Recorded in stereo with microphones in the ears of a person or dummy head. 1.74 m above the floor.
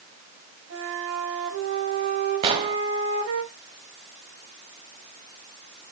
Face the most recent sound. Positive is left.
turn(degrees=-35)  # may be behind; listen again after turning